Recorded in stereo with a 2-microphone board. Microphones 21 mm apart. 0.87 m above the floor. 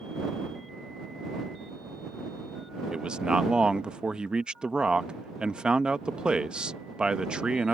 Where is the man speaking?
40° right (ahead or behind).